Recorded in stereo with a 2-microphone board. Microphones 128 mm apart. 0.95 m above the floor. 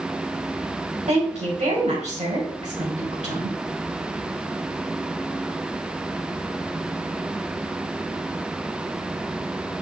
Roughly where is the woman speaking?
Right.